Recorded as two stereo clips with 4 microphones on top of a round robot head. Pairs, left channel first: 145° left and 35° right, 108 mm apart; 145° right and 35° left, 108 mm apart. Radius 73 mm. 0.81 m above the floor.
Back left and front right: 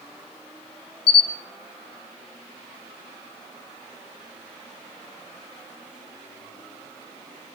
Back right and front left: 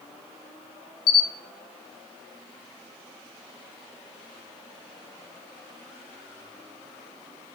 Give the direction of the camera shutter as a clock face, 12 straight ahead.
6 o'clock.